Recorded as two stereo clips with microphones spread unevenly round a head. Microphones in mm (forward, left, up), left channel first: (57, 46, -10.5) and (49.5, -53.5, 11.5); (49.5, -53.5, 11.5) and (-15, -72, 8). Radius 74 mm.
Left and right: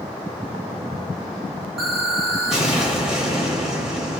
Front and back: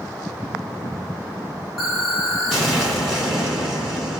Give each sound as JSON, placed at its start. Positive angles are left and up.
{"t": 1.8, "sound": "an explosion", "azimuth_deg": -60, "distance_m": 1.2}